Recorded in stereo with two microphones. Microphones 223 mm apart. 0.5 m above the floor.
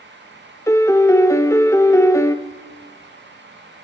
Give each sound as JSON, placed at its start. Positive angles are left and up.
{"t": 0.7, "sound": "a piano", "side_deg": 10, "distance_m": 0.7}